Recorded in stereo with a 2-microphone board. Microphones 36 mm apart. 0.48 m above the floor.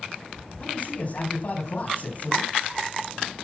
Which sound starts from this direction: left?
A man speaking, at 0.6 s.